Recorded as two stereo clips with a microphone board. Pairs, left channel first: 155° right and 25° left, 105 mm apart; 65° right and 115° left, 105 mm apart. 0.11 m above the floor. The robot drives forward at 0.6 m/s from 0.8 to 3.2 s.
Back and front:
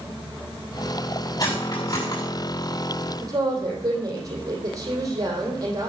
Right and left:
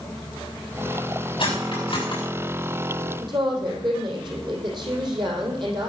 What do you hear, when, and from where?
1.4 s cutlery clinking: 105° right, 6 m; by 2.2 s 110° right, 6.5 m
3.2 s a woman speaking: 75° left, 4 m